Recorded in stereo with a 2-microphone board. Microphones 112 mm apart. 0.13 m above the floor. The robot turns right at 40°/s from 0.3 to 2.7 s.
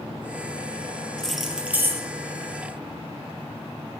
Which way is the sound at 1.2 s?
175° left.